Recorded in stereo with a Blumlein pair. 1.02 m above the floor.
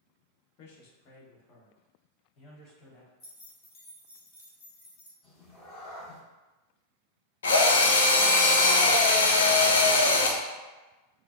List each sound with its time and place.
0.6 s a man speaking: 45° left, 1.1 m; by 3.1 s 30° left, 2.5 m
3.2 s keys jangling: 30° left, 1.4 m
5.2 s a cat meowing: 20° left, 1.2 m
7.4 s a drill: 65° left, 0.7 m